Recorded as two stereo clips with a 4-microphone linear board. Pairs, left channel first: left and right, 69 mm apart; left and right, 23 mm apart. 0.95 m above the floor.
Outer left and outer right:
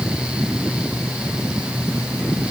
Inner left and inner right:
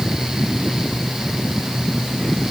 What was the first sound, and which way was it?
Only background noise.